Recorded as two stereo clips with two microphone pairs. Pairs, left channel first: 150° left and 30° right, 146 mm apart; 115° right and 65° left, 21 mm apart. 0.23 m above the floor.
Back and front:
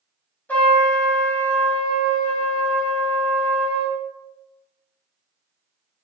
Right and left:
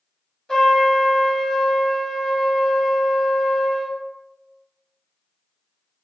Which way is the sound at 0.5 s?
140° right.